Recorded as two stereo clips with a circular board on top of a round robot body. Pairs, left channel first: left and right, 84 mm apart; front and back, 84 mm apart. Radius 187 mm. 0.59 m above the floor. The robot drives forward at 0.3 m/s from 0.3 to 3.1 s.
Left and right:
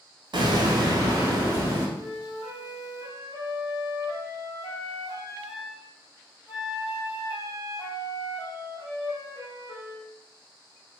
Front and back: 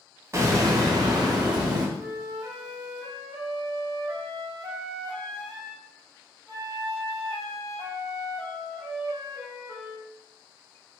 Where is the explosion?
125° right, 0.5 m; by 1.9 s 150° right, 0.9 m.